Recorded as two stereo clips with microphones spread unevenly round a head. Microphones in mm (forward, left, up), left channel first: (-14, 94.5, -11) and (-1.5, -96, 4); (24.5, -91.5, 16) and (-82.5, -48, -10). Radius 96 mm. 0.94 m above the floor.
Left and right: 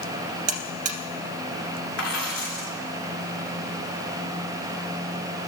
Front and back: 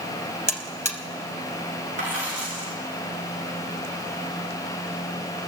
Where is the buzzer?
95° right, 1.7 m.